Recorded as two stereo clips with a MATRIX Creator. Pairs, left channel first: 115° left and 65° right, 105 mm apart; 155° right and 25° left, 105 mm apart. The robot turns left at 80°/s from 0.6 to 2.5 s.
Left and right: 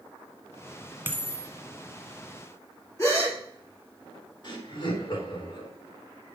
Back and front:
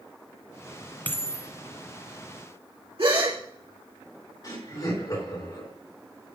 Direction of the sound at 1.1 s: 105° right.